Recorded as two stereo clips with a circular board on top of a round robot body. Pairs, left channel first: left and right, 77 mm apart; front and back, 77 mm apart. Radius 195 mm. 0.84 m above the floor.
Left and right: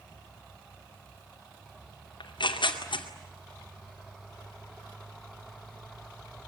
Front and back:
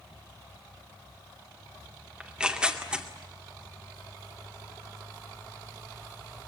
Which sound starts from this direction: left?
Tearing paper, at 2.2 s.